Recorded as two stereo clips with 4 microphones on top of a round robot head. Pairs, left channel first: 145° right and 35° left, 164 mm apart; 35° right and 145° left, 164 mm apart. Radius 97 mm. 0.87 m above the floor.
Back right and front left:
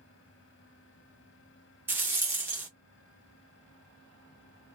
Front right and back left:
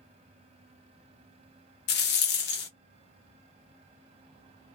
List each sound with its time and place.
1.9 s a rattle: 40° right, 0.6 m